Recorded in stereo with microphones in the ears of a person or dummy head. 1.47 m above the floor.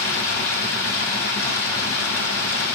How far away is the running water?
About 1.3 m.